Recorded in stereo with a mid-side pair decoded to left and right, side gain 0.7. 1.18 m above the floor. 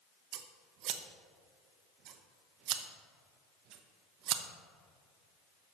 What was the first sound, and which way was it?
Scissors, 55° right.